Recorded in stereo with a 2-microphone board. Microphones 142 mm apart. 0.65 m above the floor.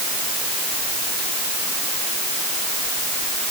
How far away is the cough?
I don't hear a cough.